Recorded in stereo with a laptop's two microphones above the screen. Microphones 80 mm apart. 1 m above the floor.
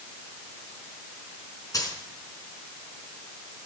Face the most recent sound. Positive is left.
turn(degrees=45)  # may be behind; listen again after turning